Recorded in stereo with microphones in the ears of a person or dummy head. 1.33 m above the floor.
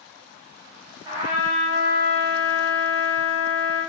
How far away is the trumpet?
About 3.5 m.